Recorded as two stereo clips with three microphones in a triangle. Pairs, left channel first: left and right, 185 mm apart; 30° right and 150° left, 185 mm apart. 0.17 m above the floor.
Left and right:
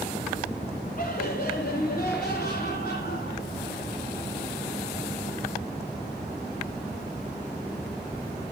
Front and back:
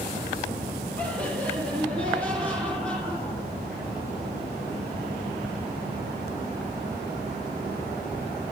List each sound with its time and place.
1.0 s laughter: 50° left, 3.5 m; by 3.9 s 55° left, 6 m